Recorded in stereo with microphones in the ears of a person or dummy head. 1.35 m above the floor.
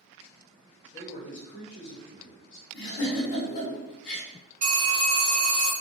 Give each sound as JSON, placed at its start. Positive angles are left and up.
{"t": 0.9, "sound": "a man speaking", "side_deg": 25, "distance_m": 0.7}
{"t": 2.7, "sound": "a giggle", "side_deg": 60, "distance_m": 1.1}
{"t": 4.6, "sound": "a phone ringing", "side_deg": -40, "distance_m": 1.6}